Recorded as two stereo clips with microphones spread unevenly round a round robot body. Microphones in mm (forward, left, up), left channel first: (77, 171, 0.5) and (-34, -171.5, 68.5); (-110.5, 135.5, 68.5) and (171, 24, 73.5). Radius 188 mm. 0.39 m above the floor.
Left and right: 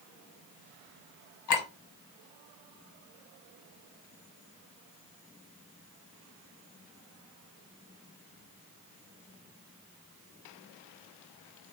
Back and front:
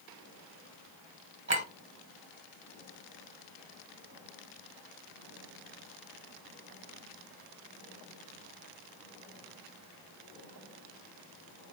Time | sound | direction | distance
1.5 | a clink | 35° left | 1.6 m